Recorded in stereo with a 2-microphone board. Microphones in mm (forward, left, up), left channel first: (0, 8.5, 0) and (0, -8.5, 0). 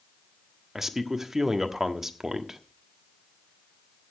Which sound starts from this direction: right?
A man speaking, at 0.8 s.